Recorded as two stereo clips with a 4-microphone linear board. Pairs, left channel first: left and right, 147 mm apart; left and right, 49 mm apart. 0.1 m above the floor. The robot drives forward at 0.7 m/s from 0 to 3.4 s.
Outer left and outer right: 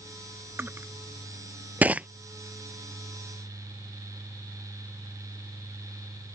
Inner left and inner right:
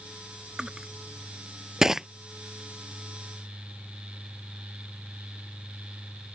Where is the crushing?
15° right (ahead or behind); by 2.1 s 10° right (ahead or behind).